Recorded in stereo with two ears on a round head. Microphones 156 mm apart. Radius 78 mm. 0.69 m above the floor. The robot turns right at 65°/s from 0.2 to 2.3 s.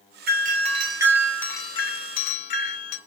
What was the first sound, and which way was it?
A doorbell, 65° right.